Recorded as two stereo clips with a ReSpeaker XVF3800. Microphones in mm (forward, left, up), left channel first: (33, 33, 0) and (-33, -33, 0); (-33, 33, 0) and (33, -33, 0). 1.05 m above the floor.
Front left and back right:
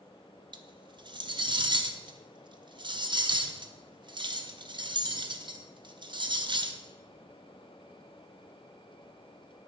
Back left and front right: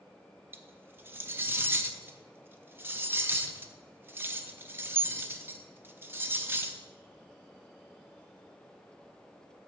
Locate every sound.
0.5 s cutlery clinking: 110° right, 0.5 m